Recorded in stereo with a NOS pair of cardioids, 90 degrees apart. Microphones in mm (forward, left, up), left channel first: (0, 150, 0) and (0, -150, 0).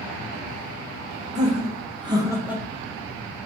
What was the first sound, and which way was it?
Laughter, 25° right.